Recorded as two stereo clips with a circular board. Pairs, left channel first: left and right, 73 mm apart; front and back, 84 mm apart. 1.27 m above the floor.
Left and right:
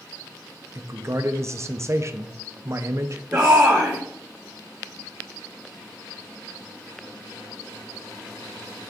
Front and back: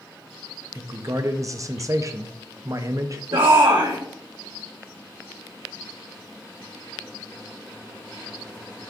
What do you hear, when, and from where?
0.8 s a man speaking: 135° right, 0.6 m
3.3 s a shout: 160° right, 1.1 m